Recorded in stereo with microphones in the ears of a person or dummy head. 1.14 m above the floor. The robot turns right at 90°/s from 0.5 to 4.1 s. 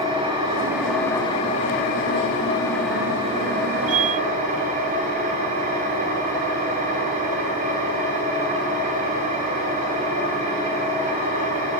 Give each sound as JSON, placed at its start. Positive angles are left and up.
{"t": 0.0, "sound": "an engine running", "azimuth_deg": -35, "distance_m": 0.9}